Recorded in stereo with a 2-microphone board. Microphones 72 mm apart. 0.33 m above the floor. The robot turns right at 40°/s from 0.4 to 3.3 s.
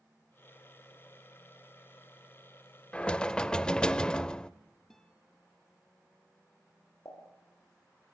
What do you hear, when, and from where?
2.9 s knocking: 20° left (ahead or behind), 0.6 m; by 4.5 s 15° left (ahead or behind), 0.6 m
4.9 s a guitar: 5° left (ahead or behind), 2.5 m
7.0 s a pop: 65° left (ahead or behind), 9.5 m